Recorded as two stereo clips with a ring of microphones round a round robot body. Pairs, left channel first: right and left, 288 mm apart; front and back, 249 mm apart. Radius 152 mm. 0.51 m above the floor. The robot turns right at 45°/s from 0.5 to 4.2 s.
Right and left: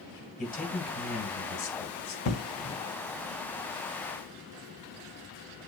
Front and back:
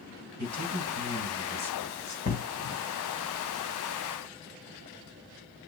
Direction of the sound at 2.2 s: 60° right.